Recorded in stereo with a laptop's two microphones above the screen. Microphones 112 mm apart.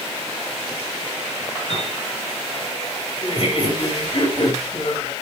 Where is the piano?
75° left (ahead or behind), 9.5 m.